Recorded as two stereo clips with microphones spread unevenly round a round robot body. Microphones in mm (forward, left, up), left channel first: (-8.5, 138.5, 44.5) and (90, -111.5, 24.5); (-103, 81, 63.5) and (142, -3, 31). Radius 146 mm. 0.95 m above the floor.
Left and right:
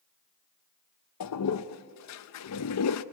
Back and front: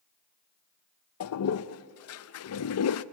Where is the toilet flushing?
135° left, 0.6 m.